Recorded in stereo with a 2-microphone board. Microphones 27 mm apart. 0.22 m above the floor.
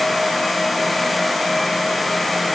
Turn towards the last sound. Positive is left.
No sound to turn to.